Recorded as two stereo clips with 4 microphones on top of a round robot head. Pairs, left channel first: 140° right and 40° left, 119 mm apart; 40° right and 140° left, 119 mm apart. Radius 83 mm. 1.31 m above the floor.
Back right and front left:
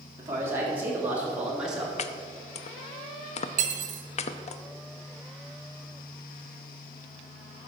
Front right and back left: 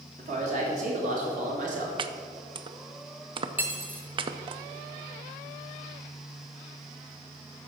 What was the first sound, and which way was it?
A man speaking, 110° left.